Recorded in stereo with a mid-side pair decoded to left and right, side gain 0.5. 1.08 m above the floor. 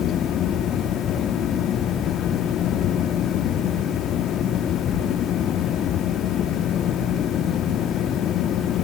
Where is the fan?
60° left, 2.5 m.